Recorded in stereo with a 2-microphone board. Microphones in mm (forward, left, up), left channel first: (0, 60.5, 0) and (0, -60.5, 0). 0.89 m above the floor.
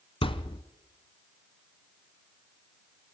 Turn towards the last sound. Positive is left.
turn(degrees=45)  # may be behind; listen again after turning